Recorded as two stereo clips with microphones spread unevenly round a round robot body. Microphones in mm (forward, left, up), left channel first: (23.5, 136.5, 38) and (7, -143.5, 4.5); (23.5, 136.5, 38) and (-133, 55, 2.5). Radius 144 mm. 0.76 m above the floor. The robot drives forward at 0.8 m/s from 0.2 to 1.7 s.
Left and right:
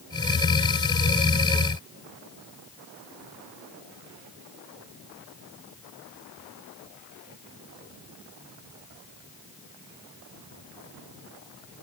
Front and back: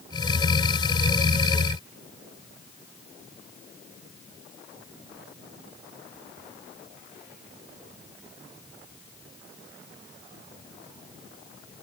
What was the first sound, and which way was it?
Only background noise.